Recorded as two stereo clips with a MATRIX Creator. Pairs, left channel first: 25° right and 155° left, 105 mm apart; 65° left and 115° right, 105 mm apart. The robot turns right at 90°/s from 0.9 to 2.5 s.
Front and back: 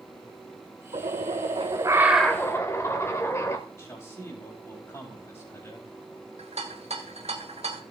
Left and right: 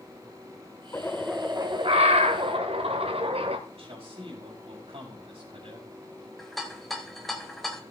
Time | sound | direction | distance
0.9 | a bird | 130° left | 1.4 m
3.7 | a man speaking | 85° right | 5 m
6.4 | a rattle | 155° left | 1.5 m